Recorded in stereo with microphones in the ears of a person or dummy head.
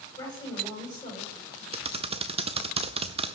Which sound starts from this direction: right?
Typing on a keyboard, at 1.7 s.